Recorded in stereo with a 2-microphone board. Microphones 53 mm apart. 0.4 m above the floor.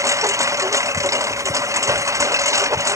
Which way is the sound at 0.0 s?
80° right.